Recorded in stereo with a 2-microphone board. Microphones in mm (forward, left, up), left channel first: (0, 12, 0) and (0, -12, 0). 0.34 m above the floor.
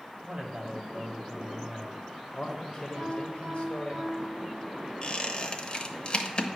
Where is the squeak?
40° left (ahead or behind), 0.8 m.